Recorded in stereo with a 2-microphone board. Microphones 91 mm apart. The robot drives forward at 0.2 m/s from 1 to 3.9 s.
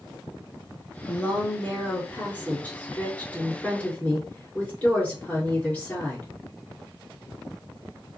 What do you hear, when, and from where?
1.1 s a woman speaking: 20° left (ahead or behind), 1.5 m; by 6.3 s 15° left (ahead or behind), 1.8 m